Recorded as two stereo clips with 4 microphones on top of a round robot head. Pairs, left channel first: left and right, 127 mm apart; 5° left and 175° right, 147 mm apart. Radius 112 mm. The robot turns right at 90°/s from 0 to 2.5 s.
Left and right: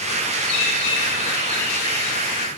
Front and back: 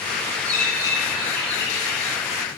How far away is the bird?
About 4.5 m.